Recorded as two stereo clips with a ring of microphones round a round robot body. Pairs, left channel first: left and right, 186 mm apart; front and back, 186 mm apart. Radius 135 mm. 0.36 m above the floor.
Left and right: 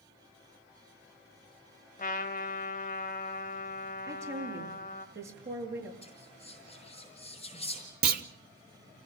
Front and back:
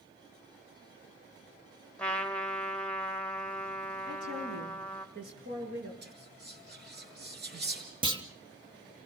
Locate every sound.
2.0 s a trumpet: 85° left, 1.5 m
4.1 s a woman speaking: 135° right, 6.5 m
6.0 s whispering: 160° left, 6.5 m
8.0 s a clunk: 120° right, 1.1 m